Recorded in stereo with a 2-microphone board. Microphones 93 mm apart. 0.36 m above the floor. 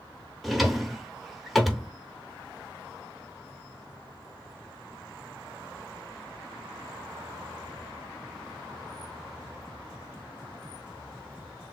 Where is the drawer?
Centre (ahead or behind), 0.7 m.